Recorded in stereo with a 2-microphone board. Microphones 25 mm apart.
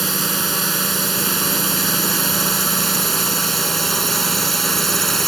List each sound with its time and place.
0.0 s a drone: centre (ahead or behind); by 5.3 s 10° left (ahead or behind)